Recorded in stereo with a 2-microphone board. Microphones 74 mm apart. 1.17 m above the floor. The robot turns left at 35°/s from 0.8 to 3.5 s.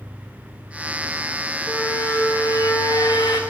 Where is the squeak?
155° left, 0.9 m; by 3.4 s 95° left, 0.9 m.